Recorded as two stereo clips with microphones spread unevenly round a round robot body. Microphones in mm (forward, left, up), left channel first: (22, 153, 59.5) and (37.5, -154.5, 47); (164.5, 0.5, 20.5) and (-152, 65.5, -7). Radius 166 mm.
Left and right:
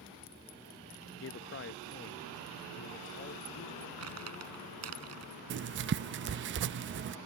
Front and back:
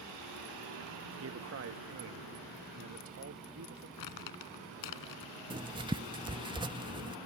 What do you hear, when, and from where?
1.1 s a man speaking: 135° left
4.0 s crumpling: 45° right
5.5 s writing: 125° right